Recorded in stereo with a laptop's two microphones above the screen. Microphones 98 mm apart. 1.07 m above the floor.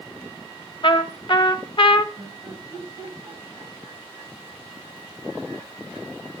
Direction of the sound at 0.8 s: 50° left (ahead or behind).